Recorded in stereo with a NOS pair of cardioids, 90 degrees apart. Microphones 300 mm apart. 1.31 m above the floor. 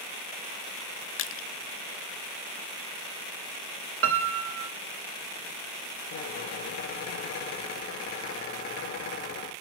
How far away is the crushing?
About 0.5 m.